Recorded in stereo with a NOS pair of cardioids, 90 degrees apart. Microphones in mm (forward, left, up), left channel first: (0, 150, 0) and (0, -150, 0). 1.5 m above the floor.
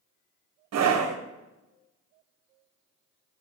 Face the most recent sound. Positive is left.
turn(degrees=-60)